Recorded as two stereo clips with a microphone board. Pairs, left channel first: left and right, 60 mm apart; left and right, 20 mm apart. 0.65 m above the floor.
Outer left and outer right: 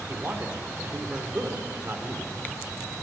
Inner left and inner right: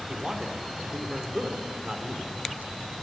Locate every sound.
0.1 s a man speaking: 35° right (ahead or behind), 1.9 m